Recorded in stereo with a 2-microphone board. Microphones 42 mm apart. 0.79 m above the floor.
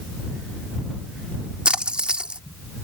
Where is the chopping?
No chopping in this recording.